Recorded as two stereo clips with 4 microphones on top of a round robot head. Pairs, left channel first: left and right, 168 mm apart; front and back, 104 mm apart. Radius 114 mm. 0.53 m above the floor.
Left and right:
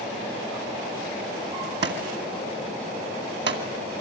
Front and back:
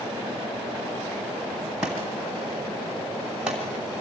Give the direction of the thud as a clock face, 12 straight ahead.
3 o'clock.